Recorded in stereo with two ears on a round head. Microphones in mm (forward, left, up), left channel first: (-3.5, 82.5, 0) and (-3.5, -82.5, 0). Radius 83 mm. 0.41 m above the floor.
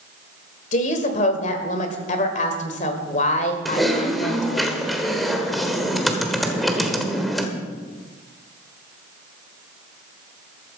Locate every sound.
0.7 s a woman speaking: 40° left (ahead or behind), 1.8 m
3.6 s typing on a keyboard: centre (ahead or behind), 1.4 m